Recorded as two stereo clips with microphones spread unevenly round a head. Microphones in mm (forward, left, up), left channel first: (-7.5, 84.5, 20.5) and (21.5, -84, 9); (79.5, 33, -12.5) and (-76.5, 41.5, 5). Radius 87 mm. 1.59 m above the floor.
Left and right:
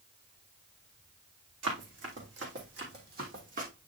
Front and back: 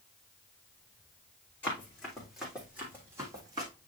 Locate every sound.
1.6 s running footsteps: 85° right, 3.5 m; by 3.7 s 125° right, 3 m